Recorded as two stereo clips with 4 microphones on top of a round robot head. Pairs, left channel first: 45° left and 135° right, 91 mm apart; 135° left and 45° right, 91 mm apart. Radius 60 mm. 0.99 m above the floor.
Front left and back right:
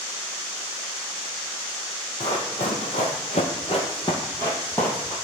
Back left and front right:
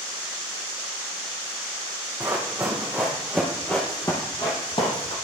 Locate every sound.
2.2 s running footsteps: 20° left, 1.7 m; by 5.2 s 120° left, 1.4 m